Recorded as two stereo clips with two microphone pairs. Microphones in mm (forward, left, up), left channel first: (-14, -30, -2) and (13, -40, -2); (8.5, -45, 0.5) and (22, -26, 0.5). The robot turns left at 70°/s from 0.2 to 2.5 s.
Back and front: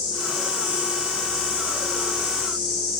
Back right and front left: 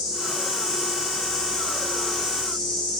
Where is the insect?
50° left, 2.0 m; by 3.0 s 115° right, 2.0 m.